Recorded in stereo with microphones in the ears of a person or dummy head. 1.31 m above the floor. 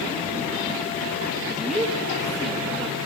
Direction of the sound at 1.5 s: 10° right (ahead or behind).